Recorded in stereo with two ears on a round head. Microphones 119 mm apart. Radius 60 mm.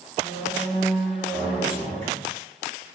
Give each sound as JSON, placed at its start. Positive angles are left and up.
{"t": 0.2, "sound": "a squeak", "side_deg": 15, "distance_m": 1.4}